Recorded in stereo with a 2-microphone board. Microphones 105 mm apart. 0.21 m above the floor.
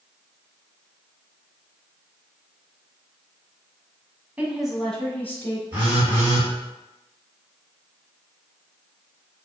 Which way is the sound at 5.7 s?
20° right (ahead or behind).